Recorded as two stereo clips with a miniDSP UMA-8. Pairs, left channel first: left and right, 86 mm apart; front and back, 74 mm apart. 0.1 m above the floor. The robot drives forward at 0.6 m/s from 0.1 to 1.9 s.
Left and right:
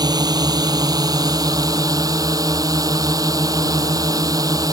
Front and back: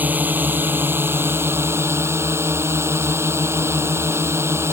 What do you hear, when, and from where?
0.0 s a drone: 115° right; by 4.7 s 130° right